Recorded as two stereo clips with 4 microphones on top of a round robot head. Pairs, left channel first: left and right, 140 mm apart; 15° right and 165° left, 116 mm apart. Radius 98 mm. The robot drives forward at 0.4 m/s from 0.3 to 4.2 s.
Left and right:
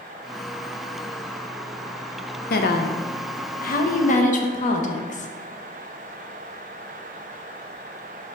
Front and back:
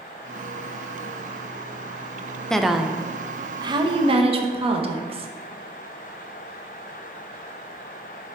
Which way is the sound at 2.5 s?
70° left.